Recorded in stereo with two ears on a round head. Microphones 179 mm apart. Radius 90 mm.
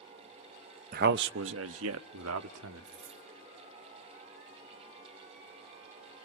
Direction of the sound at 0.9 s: 45° right (ahead or behind).